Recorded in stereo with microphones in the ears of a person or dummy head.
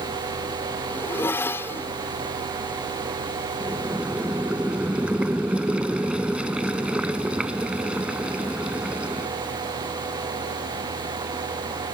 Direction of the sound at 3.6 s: 10° right (ahead or behind).